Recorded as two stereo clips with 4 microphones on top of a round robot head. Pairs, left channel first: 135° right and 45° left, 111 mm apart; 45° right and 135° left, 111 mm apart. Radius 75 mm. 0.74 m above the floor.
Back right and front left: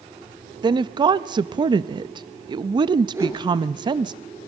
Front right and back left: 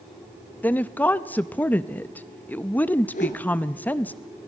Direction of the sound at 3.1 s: 25° right.